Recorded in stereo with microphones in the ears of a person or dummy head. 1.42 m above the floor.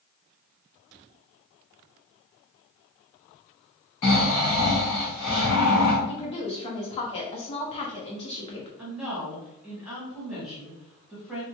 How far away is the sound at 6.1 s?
About 0.8 m.